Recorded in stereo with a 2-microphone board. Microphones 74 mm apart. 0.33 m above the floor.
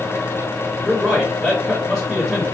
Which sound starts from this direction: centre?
A man speaking, at 0.8 s.